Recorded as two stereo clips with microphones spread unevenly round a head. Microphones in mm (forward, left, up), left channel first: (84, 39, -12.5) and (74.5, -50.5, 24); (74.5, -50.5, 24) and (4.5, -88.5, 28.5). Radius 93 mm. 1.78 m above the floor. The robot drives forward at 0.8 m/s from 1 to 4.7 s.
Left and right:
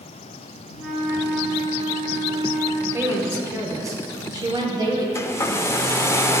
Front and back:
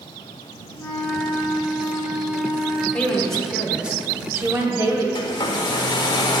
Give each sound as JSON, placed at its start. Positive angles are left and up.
{"t": 0.8, "sound": "a flute", "azimuth_deg": -20, "distance_m": 3.0}
{"t": 2.9, "sound": "a woman speaking", "azimuth_deg": -45, "distance_m": 1.5}
{"t": 5.2, "sound": "a hair dryer", "azimuth_deg": 10, "distance_m": 0.5}